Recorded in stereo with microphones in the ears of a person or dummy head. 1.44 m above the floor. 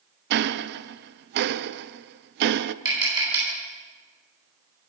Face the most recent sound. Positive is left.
turn(degrees=-20)  # may be behind; listen again after turning